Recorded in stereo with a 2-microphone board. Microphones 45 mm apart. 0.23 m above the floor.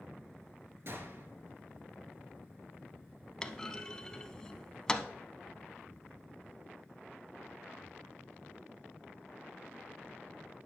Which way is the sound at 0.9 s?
55° right (ahead or behind).